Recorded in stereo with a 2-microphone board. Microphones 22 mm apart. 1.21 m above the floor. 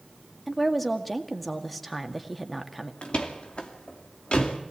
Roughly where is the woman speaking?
Centre.